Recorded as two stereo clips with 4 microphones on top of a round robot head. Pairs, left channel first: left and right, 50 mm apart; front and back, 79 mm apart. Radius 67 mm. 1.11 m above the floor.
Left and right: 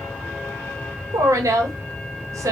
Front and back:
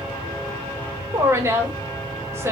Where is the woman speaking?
120° right, 1.2 m.